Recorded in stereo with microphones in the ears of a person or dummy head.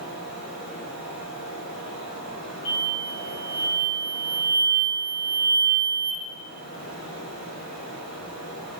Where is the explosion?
85° left, 2 m.